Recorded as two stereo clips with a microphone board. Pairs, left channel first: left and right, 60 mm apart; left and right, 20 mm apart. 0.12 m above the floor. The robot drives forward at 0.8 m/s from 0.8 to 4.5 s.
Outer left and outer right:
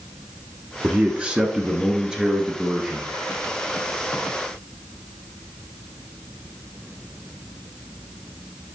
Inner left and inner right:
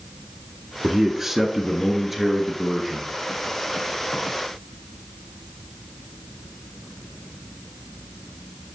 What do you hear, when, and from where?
0.8 s a man speaking: 20° right (ahead or behind), 1.1 m; by 3.1 s 10° right (ahead or behind), 2 m